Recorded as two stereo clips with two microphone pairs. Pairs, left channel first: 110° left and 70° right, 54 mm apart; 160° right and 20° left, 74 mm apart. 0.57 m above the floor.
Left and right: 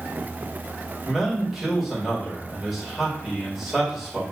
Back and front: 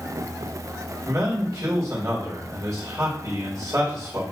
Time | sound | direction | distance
1.1 | a man speaking | 20° left | 1.6 m